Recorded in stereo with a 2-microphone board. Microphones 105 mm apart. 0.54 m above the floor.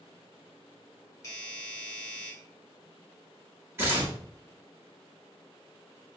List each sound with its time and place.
1.2 s a doorbell: 30° left (ahead or behind), 1.2 m
3.8 s tearing paper: 20° right (ahead or behind), 1.2 m